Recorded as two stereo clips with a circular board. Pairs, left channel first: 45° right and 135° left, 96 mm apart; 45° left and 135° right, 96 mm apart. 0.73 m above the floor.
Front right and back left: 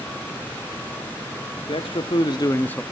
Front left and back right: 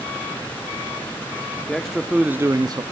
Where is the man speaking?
40° right, 1.4 m; by 2.8 s 125° right, 0.8 m.